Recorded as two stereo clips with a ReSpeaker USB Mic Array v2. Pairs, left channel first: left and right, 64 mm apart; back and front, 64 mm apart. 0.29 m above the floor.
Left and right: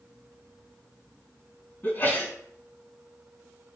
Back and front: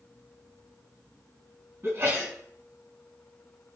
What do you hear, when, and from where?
1.8 s a sneeze: 40° left, 3 m